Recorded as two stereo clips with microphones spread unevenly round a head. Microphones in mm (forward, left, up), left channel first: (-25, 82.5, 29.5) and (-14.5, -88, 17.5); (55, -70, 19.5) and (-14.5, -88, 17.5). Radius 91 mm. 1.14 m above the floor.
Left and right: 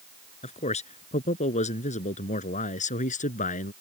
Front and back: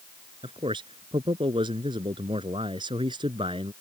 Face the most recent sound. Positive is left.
turn(degrees=140)